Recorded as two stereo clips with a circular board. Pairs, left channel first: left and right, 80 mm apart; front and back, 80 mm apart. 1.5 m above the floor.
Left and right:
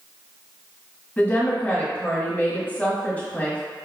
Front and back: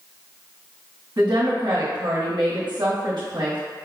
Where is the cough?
I don't hear a cough.